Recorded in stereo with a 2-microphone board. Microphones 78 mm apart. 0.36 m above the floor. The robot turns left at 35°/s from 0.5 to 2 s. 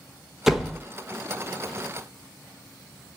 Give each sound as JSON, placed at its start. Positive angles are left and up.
{"t": 0.5, "sound": "a door slam", "side_deg": -5, "distance_m": 0.9}